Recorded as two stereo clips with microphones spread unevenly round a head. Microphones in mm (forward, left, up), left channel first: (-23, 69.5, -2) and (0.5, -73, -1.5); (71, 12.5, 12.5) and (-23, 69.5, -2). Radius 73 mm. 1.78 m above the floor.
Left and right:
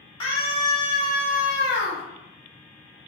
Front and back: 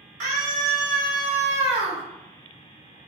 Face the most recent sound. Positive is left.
turn(degrees=105)